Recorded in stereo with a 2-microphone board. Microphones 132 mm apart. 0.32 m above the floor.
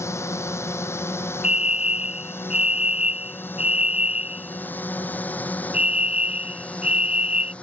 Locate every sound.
0.0 s a drone: 20° left (ahead or behind); by 7.6 s 10° left (ahead or behind)
1.4 s a fire alarm: 55° left (ahead or behind)